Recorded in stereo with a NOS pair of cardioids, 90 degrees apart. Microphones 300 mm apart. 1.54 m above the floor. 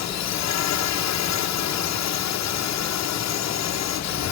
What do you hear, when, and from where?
0.0 s a drone: 70° left